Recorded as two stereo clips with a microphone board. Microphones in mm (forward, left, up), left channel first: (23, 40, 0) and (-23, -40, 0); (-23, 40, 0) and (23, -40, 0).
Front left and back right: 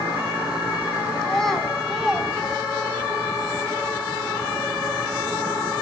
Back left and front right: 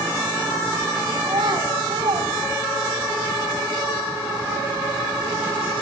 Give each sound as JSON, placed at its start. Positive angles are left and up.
{"t": 1.2, "sound": "a child speaking", "azimuth_deg": -25, "distance_m": 4.0}